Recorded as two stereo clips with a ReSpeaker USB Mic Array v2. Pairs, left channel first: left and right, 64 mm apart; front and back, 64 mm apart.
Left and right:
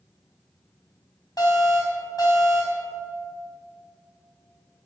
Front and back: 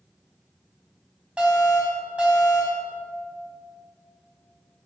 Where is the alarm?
110° left, 4.5 m.